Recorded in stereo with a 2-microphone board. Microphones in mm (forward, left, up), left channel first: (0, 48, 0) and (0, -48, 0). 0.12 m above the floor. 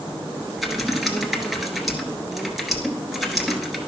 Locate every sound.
0.6 s typing on a keyboard: 5° right (ahead or behind), 1.1 m